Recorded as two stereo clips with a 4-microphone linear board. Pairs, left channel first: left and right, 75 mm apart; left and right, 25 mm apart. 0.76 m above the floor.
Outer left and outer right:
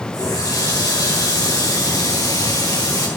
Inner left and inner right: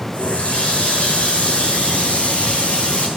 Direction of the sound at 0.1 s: 55° left (ahead or behind).